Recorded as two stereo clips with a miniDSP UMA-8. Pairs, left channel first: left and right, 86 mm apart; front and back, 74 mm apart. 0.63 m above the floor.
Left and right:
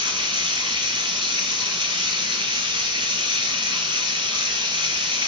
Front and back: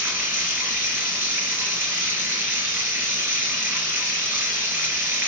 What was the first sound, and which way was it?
Running water, 120° right.